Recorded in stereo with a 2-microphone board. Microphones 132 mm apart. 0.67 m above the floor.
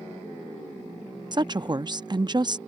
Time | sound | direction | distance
1.3 | a woman speaking | 35° right (ahead or behind) | ?